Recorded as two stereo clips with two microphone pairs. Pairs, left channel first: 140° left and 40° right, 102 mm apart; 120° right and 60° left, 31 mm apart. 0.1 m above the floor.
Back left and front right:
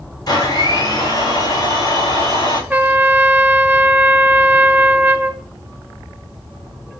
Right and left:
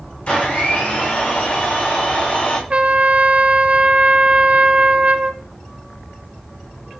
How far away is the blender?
About 8 m.